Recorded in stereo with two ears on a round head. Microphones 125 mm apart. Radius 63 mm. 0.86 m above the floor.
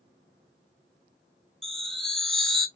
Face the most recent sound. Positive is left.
turn(degrees=5)  # may be behind; listen again after turning